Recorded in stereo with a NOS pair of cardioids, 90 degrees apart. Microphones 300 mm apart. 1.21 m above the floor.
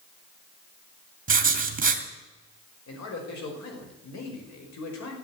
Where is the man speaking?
65° left, 5.5 m.